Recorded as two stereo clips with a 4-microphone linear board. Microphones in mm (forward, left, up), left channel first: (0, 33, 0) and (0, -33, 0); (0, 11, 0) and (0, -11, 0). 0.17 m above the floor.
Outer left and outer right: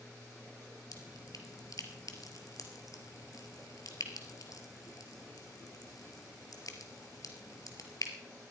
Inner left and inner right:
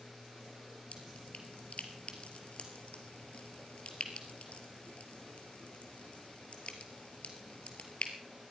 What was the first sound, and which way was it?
Dripping, 60° left (ahead or behind).